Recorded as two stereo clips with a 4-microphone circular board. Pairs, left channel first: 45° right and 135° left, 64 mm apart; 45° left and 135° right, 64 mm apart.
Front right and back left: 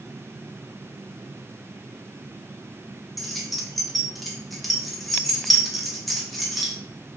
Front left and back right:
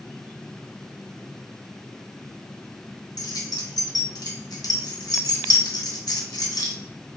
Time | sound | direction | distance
3.2 | keys jangling | 45° left | 0.9 m